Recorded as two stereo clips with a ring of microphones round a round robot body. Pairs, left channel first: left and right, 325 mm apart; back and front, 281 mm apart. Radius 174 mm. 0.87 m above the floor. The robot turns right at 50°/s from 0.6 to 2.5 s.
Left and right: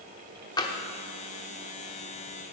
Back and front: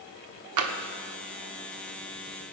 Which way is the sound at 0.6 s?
10° left.